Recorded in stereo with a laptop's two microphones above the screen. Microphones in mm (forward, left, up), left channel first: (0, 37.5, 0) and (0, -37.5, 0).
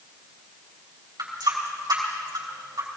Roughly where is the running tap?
Right.